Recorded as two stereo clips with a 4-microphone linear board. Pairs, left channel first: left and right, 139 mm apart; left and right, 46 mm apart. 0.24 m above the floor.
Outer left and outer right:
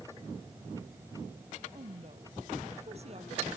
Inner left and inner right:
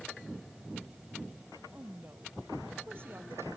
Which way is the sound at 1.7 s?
50° right (ahead or behind).